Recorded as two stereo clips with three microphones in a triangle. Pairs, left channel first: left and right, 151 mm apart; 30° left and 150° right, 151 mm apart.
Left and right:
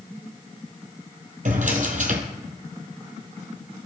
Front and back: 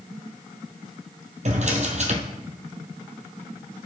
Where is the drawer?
115° right, 1.4 m.